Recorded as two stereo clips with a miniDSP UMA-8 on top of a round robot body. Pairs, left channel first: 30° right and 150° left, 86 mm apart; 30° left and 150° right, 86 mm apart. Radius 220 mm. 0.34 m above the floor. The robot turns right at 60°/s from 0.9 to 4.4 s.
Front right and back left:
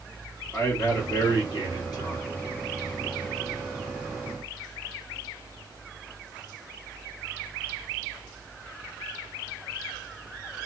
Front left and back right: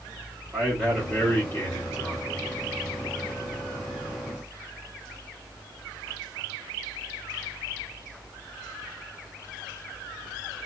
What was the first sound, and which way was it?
A man speaking, 70° right.